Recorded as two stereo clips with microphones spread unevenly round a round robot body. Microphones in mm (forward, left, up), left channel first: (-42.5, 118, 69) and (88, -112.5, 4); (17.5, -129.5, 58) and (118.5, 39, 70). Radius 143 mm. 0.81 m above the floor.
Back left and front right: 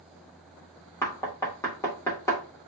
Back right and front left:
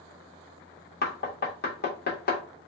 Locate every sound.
1.0 s knocking: 155° right, 1.5 m